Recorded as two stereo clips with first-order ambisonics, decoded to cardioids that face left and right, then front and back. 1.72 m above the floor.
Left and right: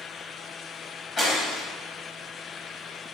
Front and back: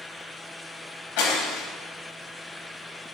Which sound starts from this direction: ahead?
Breaking glass, at 1.2 s.